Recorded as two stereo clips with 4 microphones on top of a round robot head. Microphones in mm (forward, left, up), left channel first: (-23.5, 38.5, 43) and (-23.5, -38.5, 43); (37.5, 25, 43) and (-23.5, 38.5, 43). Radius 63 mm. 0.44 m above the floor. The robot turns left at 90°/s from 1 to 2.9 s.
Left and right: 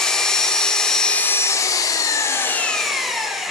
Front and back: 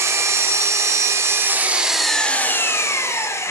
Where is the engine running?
170° left, 1.1 m; by 3.5 s straight ahead, 1.1 m.